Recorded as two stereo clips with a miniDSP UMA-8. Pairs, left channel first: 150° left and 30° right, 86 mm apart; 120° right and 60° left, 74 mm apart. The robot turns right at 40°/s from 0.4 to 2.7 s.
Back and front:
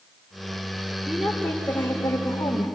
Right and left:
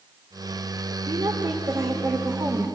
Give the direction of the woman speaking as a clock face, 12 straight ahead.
10 o'clock.